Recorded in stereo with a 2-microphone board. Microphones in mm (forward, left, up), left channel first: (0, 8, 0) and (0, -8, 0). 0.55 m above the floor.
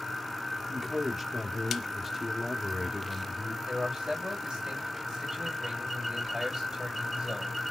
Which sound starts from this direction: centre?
A man speaking, at 0.7 s.